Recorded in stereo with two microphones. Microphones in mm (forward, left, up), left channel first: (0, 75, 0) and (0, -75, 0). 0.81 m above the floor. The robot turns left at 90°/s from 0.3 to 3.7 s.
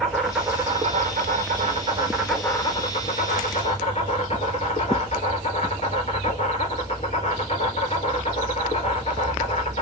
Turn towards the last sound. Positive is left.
turn(degrees=55)